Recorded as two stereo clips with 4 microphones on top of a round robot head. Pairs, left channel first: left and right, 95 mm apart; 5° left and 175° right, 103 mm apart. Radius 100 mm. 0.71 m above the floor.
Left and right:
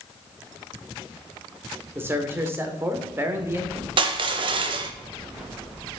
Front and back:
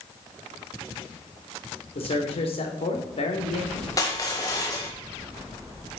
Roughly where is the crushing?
Ahead right.